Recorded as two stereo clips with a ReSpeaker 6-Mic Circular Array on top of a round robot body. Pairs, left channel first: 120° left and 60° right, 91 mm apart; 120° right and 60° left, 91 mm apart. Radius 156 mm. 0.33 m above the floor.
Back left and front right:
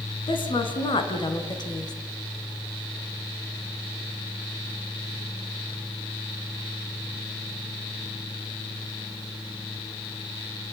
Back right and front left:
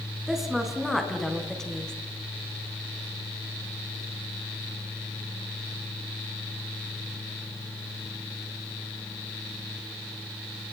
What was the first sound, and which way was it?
A woman speaking, 145° left.